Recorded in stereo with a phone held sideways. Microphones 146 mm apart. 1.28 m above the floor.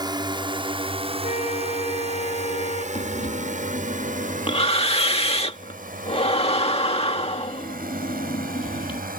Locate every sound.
0.0 s a drone: 30° right (ahead or behind); by 9.2 s 80° right
1.2 s a flute: 50° left (ahead or behind)
3.0 s breathing: 45° left (ahead or behind)